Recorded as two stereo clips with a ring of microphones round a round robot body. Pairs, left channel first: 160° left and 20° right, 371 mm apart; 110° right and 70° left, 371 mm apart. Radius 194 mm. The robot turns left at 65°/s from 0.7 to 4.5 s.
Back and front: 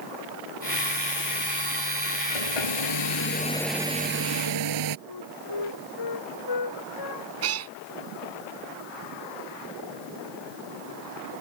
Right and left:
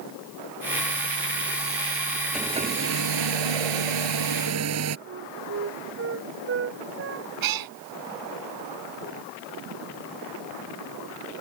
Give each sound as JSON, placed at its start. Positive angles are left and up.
{"t": 2.3, "sound": "a hair dryer", "azimuth_deg": 155}
{"t": 5.1, "sound": "a flute", "azimuth_deg": 125}
{"t": 7.4, "sound": "a cat meowing", "azimuth_deg": 30}